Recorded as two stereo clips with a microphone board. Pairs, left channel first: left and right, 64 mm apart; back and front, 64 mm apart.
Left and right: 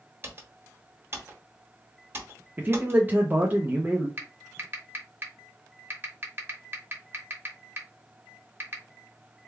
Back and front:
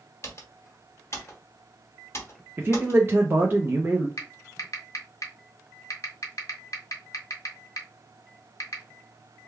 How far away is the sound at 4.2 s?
About 1.0 m.